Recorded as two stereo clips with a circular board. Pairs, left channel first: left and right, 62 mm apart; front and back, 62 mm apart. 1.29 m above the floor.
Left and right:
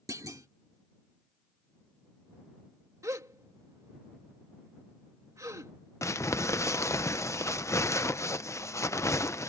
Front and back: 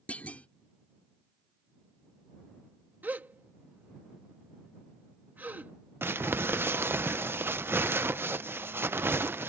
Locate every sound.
0.1 s a clunk: 65° right
3.0 s a gasp: 120° right
6.0 s crumpling: 130° left